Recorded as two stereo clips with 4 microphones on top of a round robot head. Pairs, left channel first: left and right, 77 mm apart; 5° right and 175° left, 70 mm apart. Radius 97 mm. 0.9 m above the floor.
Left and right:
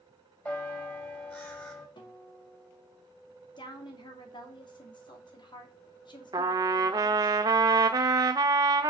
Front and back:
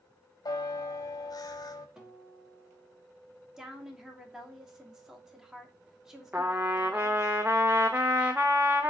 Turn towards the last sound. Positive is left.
turn(degrees=-115)